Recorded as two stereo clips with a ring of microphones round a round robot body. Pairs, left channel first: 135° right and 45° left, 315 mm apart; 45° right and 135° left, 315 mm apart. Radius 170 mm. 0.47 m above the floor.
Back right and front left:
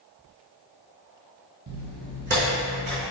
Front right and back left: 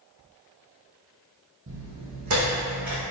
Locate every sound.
1.7 s footsteps: 85° left, 0.8 m; by 3.0 s 105° left, 1.9 m